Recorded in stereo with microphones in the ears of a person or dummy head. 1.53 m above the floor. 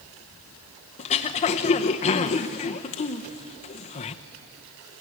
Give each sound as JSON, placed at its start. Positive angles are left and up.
{"t": 1.0, "sound": "throat clearing", "side_deg": 30, "distance_m": 0.8}